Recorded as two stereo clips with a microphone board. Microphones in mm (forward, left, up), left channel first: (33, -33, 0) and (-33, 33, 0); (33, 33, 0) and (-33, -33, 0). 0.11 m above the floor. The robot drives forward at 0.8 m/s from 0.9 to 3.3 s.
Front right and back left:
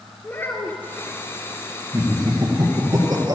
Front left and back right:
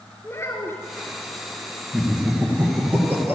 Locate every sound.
0.2 s a child speaking: 5° left, 1.3 m
1.9 s laughter: 145° left, 2 m; by 3.4 s 160° left, 3 m